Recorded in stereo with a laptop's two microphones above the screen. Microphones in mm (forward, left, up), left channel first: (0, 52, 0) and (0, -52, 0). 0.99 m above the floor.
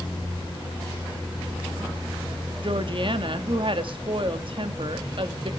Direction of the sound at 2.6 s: 55° right (ahead or behind).